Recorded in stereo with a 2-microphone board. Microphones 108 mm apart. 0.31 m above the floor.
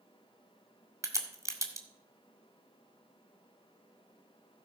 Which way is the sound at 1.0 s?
30° right (ahead or behind).